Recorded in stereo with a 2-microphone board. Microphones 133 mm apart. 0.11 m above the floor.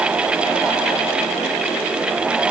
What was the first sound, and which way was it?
Only background noise.